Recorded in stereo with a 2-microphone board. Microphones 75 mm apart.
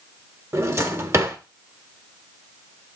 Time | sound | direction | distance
0.5 | a drawer | 40° right (ahead or behind) | 1.3 m